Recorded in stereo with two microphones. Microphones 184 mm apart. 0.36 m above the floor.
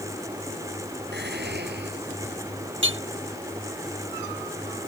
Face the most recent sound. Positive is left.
turn(degrees=-80)